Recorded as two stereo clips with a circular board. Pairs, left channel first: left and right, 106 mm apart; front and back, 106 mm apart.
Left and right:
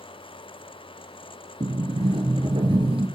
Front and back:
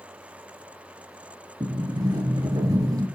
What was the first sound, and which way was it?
A sliding door, 125° right.